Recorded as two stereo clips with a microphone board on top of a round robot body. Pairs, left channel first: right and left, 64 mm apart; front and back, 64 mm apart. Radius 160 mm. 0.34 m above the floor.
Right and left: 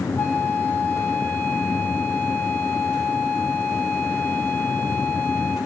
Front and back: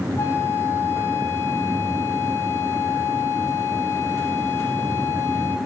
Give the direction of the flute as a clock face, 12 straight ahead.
1 o'clock.